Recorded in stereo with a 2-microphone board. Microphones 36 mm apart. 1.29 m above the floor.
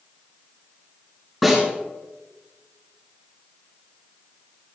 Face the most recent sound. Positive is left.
turn(degrees=5)  # may be behind; listen again after turning